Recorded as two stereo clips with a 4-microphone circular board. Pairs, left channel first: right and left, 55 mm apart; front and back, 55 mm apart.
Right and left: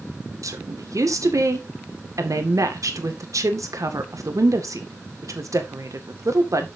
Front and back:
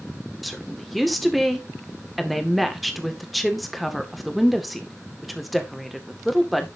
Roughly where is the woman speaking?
Left.